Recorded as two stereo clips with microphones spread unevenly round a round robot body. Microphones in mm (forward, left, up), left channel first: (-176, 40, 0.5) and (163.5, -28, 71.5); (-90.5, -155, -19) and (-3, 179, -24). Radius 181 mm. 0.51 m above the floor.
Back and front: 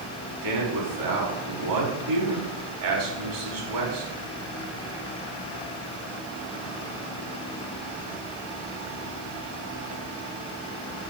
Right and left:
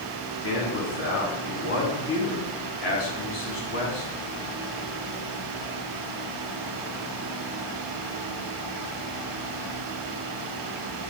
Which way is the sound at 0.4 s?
50° right.